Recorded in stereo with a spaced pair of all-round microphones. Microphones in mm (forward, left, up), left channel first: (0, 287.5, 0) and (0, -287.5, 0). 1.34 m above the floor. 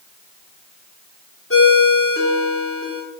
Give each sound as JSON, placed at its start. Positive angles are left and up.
{"t": 1.5, "sound": "a ringtone", "side_deg": 20, "distance_m": 1.9}